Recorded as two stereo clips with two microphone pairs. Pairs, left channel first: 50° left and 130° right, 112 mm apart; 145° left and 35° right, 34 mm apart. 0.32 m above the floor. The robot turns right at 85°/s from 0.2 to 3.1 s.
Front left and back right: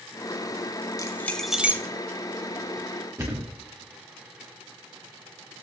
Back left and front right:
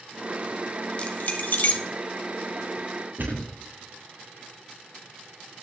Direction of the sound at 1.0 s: 100° left.